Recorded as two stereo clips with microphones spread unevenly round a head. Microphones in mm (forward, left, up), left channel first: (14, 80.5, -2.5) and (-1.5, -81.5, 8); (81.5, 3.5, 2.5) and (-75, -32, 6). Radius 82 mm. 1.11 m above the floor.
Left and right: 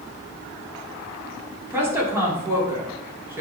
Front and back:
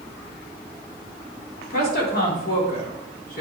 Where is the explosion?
No explosion in this recording.